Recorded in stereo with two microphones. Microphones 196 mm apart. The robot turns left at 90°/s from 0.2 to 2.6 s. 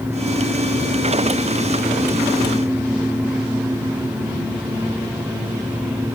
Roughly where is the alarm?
I don't hear an alarm.